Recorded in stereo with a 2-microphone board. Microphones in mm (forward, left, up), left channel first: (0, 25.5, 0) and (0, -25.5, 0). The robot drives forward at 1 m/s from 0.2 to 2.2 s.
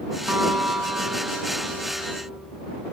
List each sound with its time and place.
0.3 s a guitar: 60° right (ahead or behind), 2.5 m; by 2.4 s 50° right (ahead or behind), 3 m